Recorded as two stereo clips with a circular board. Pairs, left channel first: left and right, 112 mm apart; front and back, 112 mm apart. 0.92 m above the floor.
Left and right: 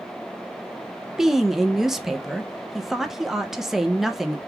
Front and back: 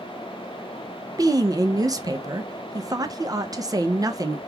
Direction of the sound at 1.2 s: 175° right.